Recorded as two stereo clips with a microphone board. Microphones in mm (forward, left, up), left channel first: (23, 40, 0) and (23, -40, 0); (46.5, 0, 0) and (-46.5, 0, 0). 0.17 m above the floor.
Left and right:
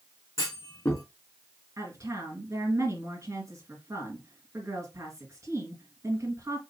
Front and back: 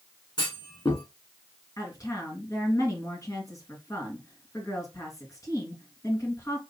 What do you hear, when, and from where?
0.4 s a clunk: 35° left, 3 m
1.8 s a woman speaking: 45° right, 3 m